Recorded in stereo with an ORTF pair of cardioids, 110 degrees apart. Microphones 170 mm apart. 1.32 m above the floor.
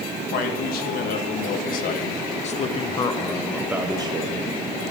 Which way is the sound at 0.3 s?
70° left.